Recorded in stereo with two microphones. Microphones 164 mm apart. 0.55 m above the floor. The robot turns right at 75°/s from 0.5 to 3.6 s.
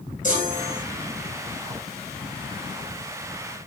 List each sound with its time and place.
0.2 s a chime: 50° left (ahead or behind), 8.5 m; by 0.8 s 25° left (ahead or behind), 8.5 m